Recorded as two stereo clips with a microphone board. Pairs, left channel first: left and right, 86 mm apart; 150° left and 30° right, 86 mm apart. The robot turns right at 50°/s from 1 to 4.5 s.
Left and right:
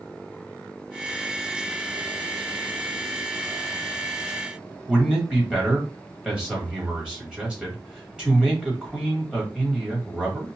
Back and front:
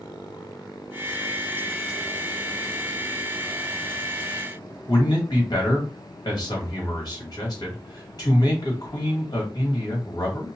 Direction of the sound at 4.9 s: 170° right.